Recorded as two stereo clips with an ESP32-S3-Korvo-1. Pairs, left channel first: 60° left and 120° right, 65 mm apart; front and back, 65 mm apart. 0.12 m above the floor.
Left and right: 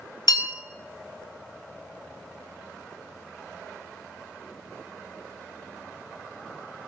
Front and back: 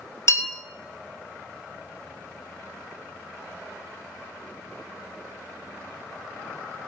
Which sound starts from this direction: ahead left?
A bell, at 0.3 s.